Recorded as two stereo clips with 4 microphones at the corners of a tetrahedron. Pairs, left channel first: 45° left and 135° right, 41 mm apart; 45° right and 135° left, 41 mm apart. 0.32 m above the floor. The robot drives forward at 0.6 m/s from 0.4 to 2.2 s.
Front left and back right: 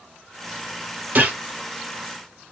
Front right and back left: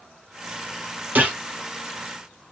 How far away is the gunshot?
About 1.6 m.